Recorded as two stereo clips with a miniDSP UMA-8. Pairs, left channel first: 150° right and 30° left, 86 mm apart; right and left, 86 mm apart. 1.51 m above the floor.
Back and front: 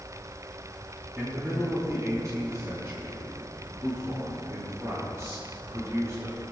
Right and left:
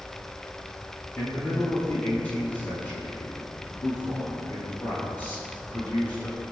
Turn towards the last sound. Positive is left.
turn(degrees=-25)